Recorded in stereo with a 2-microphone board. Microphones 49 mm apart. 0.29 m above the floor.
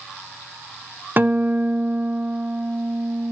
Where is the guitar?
40° right (ahead or behind), 0.6 m.